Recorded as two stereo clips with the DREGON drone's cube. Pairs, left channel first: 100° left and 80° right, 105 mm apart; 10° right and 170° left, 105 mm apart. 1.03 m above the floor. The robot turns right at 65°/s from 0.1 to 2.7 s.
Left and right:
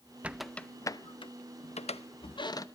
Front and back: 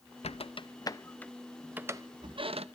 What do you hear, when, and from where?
0.2 s a squeak: straight ahead, 0.6 m; by 2.6 s 155° left, 0.6 m